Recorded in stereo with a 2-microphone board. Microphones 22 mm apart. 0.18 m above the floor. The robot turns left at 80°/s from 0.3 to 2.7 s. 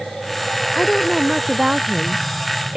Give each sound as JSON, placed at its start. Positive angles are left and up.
{"t": 0.8, "sound": "a woman speaking", "azimuth_deg": 35}